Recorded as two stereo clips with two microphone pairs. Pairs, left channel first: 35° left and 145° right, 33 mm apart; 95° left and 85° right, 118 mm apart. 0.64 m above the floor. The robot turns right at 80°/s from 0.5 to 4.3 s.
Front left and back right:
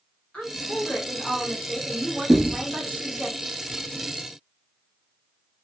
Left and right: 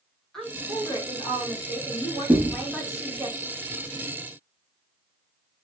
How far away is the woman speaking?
About 1.3 m.